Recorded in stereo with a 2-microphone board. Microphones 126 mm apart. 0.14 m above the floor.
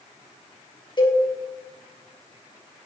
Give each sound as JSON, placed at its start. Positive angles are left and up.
{"t": 1.0, "sound": "a cowbell", "side_deg": 35, "distance_m": 3.5}